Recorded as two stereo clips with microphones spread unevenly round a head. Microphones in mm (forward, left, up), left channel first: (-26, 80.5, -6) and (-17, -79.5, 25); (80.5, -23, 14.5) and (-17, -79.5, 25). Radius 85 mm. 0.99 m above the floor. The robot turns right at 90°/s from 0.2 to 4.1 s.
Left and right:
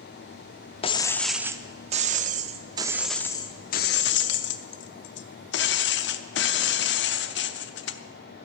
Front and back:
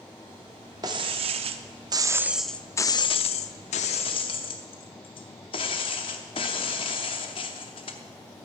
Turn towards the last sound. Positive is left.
turn(degrees=85)